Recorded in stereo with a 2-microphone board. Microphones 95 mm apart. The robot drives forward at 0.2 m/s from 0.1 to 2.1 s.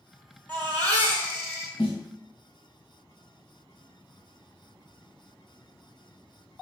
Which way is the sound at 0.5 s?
20° left (ahead or behind).